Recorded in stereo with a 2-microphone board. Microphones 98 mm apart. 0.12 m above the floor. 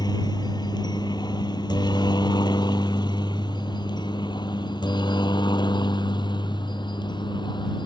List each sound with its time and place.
0.0 s a helicopter: 50° left (ahead or behind); by 7.9 s 55° left (ahead or behind)